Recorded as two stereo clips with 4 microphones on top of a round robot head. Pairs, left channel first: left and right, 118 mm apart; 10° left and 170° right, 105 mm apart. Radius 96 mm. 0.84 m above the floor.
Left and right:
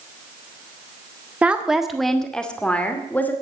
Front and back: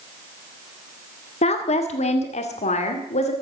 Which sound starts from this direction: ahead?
A woman speaking, at 1.4 s.